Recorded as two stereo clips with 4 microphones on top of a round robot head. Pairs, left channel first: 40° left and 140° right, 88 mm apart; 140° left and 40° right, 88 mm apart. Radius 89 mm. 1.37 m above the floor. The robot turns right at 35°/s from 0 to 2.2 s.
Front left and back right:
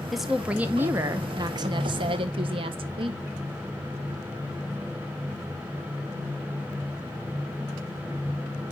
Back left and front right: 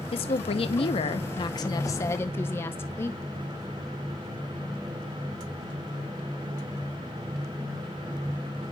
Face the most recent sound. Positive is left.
turn(degrees=-155)